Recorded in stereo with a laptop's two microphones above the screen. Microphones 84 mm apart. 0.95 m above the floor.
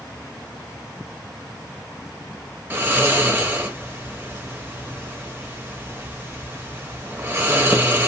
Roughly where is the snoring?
Right.